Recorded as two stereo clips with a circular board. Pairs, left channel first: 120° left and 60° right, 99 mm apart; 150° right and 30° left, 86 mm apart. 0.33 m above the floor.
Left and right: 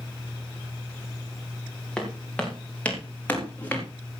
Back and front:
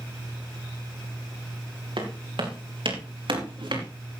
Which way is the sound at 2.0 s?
40° left.